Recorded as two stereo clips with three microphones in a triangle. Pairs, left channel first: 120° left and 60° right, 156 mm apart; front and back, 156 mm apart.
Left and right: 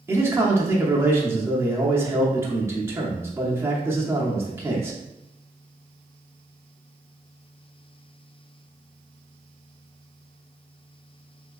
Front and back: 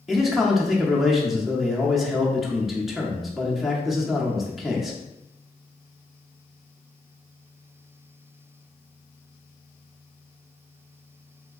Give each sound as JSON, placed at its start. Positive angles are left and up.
{"t": 0.1, "sound": "a man speaking", "azimuth_deg": -95, "distance_m": 0.6}